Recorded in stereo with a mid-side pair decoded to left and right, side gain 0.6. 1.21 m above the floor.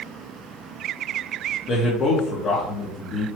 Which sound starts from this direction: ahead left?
A man speaking, at 1.7 s.